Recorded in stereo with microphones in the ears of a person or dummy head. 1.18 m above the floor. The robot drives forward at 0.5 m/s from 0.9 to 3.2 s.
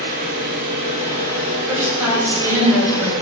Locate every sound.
0.0 s an engine running: 50° right (ahead or behind), 2 m; by 3.2 s 30° right (ahead or behind), 3 m
1.7 s a woman speaking: 15° right (ahead or behind), 3.5 m; by 3.1 s 10° right (ahead or behind), 4.5 m